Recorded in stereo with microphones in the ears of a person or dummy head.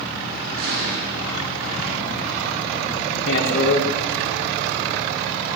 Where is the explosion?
75° right (ahead or behind), 5 m.